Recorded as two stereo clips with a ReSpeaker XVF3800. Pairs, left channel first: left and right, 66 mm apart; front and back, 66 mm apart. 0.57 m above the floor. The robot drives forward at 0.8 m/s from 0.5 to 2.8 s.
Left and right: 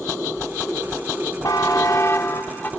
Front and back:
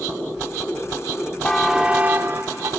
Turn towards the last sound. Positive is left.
turn(degrees=150)